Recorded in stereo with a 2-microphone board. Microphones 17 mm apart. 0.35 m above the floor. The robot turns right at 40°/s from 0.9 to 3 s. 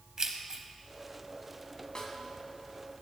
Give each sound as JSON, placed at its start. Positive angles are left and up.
{"t": 0.2, "sound": "keys jangling", "side_deg": -35, "distance_m": 1.2}
{"t": 1.9, "sound": "a snare drum", "side_deg": 40, "distance_m": 1.8}